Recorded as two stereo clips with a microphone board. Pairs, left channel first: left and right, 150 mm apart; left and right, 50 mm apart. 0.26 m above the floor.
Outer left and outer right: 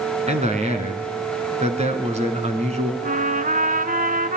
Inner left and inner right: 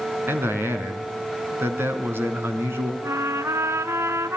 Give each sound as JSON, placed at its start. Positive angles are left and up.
{"t": 0.3, "sound": "a man speaking", "side_deg": -45, "distance_m": 3.5}
{"t": 3.0, "sound": "a trumpet", "side_deg": -65, "distance_m": 1.0}